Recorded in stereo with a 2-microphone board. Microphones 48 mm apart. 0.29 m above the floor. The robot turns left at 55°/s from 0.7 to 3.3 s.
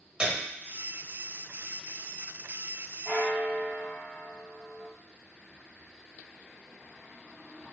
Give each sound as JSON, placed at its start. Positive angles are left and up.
{"t": 0.2, "sound": "a piano", "side_deg": -25, "distance_m": 1.0}
{"t": 3.0, "sound": "a bell", "side_deg": -25, "distance_m": 1.9}